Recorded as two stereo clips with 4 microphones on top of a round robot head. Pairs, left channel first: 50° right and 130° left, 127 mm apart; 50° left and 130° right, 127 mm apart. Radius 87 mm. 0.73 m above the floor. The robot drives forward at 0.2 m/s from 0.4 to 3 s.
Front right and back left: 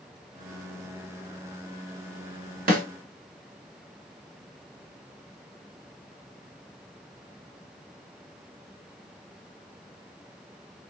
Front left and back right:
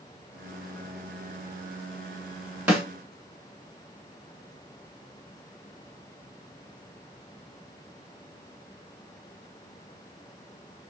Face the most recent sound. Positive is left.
turn(degrees=150)